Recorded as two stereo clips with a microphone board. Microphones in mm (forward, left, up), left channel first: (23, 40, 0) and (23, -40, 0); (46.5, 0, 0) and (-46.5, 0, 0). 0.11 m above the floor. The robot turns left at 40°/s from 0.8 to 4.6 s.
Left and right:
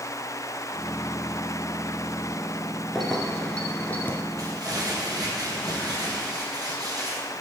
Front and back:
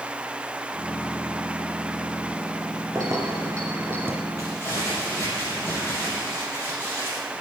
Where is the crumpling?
50° right, 4 m; by 7.2 s 60° right, 4 m.